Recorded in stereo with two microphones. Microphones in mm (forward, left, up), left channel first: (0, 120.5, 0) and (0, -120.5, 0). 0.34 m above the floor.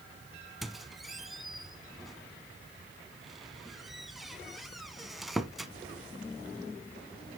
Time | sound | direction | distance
0.6 | a squeak | centre (ahead or behind) | 0.6 m